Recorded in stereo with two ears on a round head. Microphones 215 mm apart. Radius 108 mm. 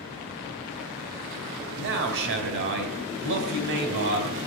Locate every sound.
1.8 s a man speaking: 50° right (ahead or behind), 2.5 m